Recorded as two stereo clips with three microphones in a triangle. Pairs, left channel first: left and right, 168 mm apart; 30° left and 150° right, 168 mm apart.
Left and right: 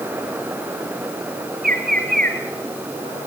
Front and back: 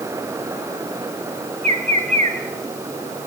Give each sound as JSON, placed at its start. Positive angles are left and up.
{"t": 1.6, "sound": "a bird", "azimuth_deg": -105, "distance_m": 3.0}